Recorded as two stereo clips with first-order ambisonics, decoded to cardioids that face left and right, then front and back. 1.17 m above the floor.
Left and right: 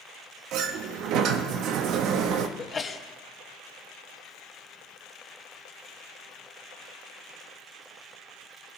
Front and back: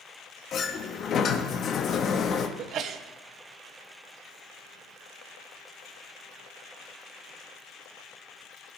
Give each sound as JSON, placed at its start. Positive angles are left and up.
{"t": 0.5, "sound": "a sliding door", "azimuth_deg": -55, "distance_m": 0.8}
{"t": 2.6, "sound": "a sneeze", "azimuth_deg": 155, "distance_m": 0.7}